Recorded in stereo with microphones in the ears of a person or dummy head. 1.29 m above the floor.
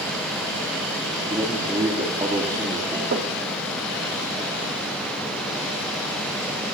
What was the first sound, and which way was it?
A man speaking, 15° right (ahead or behind).